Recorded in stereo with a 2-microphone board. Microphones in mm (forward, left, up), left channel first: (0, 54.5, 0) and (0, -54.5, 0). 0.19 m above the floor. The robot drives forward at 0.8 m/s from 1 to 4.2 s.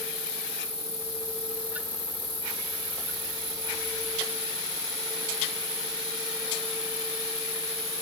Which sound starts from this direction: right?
An insect, at 0.0 s.